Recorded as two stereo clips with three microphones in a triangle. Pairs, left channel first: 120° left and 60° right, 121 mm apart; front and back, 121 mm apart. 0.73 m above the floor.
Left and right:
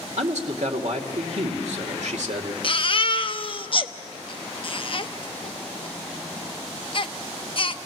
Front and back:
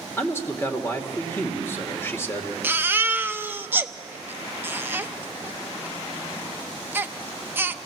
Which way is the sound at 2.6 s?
115° left.